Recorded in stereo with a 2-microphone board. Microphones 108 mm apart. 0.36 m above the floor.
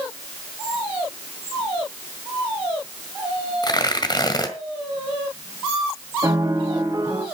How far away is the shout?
No shout in this recording.